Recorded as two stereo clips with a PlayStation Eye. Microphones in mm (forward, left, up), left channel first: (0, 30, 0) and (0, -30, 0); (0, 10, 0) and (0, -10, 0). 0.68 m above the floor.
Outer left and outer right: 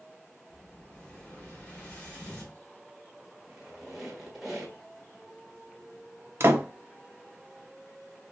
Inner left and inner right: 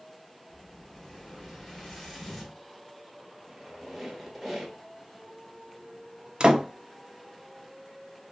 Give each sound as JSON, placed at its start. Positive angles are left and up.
{"t": 0.5, "sound": "an explosion", "side_deg": 15, "distance_m": 3.5}
{"t": 3.5, "sound": "a squeak", "side_deg": -5, "distance_m": 1.6}
{"t": 6.4, "sound": "a door slam", "side_deg": -45, "distance_m": 0.6}